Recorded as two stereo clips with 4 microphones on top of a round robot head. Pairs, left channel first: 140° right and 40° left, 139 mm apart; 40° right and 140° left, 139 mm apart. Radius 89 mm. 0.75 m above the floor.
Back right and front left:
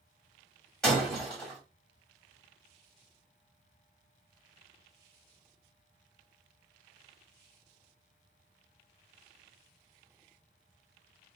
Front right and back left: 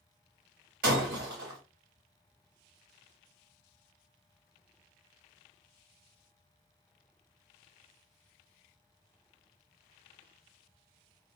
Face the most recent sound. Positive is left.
turn(degrees=135)